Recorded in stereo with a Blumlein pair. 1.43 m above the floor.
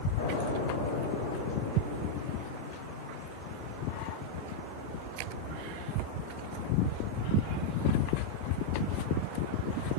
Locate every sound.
0.2 s an explosion: 55° left, 5 m